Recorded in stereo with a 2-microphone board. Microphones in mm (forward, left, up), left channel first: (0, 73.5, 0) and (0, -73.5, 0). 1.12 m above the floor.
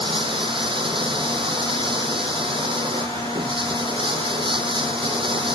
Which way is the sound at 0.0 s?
35° right (ahead or behind).